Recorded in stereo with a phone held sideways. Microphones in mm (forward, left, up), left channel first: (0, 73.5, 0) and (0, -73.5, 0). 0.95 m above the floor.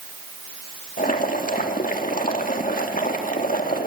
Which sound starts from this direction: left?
Boiling, at 1.0 s.